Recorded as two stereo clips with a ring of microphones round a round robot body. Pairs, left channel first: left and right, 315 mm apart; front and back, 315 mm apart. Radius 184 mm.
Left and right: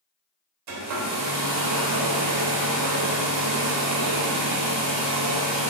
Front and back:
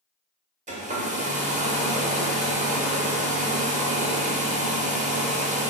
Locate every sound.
0.7 s a hair dryer: 115° right, 0.7 m